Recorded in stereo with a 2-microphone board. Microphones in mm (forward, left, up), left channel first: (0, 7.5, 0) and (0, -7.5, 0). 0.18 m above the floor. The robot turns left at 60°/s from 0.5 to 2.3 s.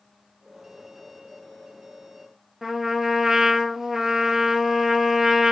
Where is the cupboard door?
I don't hear a cupboard door.